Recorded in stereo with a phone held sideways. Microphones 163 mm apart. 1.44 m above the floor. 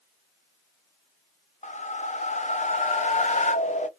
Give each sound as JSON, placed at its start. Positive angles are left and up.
{"t": 1.6, "sound": "a whoosh", "side_deg": 45, "distance_m": 0.6}